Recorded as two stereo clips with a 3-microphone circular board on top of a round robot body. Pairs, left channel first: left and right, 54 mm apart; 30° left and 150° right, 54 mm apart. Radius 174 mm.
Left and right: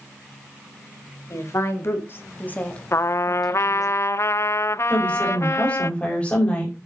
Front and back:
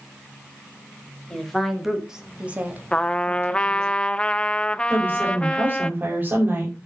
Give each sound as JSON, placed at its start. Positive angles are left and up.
{"t": 1.3, "sound": "a woman speaking", "azimuth_deg": 110, "distance_m": 2.5}
{"t": 2.9, "sound": "a trumpet", "azimuth_deg": 95, "distance_m": 0.6}
{"t": 4.9, "sound": "a woman speaking", "azimuth_deg": 155, "distance_m": 5.0}